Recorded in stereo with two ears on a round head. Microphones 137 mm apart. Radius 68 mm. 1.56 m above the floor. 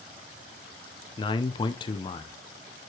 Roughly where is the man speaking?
Left.